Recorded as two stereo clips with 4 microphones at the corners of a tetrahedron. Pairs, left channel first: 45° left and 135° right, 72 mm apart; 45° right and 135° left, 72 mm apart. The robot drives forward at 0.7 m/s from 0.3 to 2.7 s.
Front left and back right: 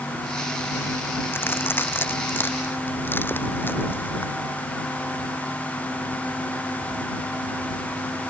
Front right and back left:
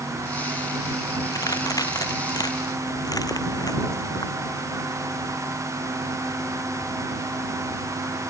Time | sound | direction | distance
1.3 | a crack | 15° right | ?